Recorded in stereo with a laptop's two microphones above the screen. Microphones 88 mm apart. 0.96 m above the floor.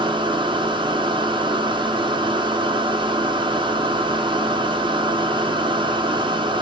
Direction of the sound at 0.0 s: 65° right (ahead or behind).